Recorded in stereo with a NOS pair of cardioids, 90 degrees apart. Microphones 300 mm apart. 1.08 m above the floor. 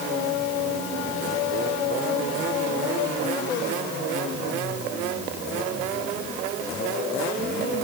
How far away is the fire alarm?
I don't hear a fire alarm.